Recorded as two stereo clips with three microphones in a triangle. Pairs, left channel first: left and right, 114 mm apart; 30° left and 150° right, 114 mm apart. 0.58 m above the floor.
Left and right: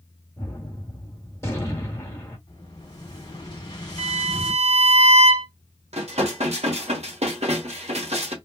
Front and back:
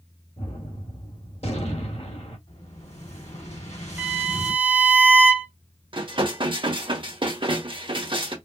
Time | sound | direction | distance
0.4 | a gunshot | 25° left | 1.7 m
2.5 | an explosion | 40° left | 2.5 m
4.0 | a violin | 75° right | 0.6 m
5.9 | dishes clattering | 110° right | 1.2 m